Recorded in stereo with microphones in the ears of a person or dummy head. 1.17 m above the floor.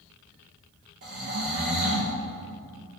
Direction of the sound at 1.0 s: 55° right (ahead or behind).